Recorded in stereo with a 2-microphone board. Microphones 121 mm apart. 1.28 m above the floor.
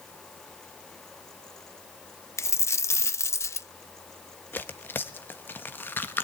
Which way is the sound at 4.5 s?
15° left (ahead or behind).